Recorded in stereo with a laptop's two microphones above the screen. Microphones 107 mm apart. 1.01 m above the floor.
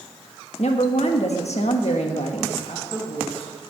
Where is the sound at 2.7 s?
60° left (ahead or behind), 6.5 m.